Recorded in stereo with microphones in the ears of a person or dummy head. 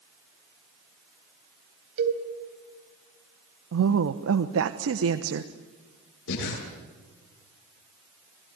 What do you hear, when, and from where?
2.0 s a cowbell: 60° right (ahead or behind), 3.5 m
3.7 s a woman speaking: 70° right (ahead or behind), 1.1 m
6.3 s breathing: 80° left, 8.5 m